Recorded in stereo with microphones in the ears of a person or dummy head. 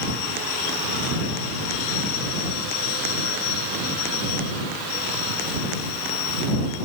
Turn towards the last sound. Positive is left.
No sound to turn to.